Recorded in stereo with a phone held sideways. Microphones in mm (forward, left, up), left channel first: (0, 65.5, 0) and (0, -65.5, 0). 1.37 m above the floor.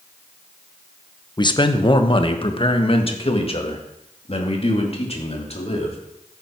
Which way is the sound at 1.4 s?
35° left (ahead or behind).